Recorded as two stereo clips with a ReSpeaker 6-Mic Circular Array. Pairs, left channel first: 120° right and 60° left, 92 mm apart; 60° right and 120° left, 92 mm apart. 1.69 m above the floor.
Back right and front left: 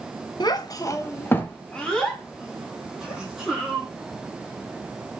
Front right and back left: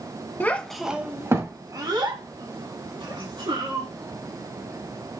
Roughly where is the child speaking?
Behind right.